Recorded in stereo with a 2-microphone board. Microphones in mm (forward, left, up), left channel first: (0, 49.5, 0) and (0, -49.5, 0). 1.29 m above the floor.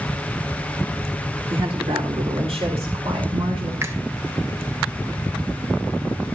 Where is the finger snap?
30° right (ahead or behind), 1.6 m.